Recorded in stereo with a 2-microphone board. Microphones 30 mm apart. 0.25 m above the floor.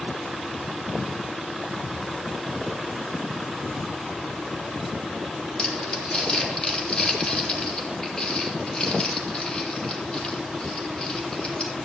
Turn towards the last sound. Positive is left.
turn(degrees=25)  # may be behind; listen again after turning